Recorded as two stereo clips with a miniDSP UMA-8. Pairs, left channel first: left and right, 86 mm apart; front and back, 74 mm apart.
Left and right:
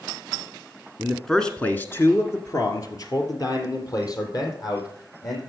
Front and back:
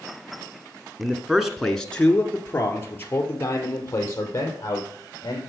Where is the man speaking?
155° right, 1.2 m; by 5.4 s 50° left, 4.5 m.